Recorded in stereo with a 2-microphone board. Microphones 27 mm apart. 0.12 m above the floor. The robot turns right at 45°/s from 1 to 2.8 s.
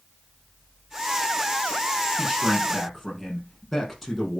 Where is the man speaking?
20° right (ahead or behind), 5 m; by 4.4 s 5° left (ahead or behind), 5 m.